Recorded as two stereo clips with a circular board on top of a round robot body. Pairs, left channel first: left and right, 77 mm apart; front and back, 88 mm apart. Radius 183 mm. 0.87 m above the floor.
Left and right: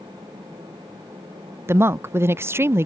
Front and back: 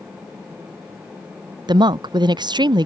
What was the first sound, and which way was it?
A woman speaking, 145° right.